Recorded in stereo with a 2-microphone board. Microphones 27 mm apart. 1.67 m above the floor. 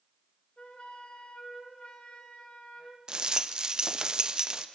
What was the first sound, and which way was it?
A flute, 45° left (ahead or behind).